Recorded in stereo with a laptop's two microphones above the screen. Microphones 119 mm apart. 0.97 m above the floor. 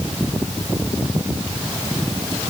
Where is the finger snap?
I don't hear a finger snap.